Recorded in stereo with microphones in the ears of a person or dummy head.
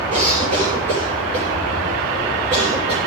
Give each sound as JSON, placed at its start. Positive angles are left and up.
{"t": 0.1, "sound": "a cough", "side_deg": -40, "distance_m": 8.5}